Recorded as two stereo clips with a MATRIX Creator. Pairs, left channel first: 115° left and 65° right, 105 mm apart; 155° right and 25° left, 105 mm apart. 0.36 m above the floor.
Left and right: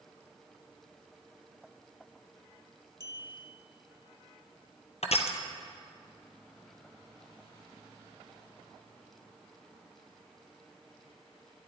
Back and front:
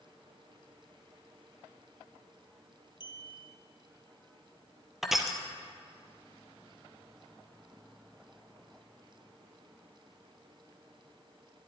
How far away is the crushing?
About 1.3 m.